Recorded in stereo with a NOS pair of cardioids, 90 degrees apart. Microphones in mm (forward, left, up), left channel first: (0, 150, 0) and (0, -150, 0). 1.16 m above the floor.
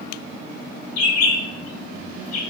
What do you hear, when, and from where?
1.0 s a bird: 60° left, 0.7 m